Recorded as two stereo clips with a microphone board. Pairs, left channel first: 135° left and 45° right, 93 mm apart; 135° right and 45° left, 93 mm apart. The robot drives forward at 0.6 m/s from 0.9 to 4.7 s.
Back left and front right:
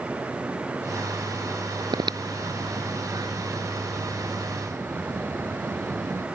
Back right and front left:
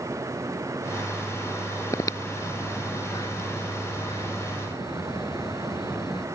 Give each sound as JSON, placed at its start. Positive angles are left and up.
{"t": 1.9, "sound": "breathing", "azimuth_deg": -80}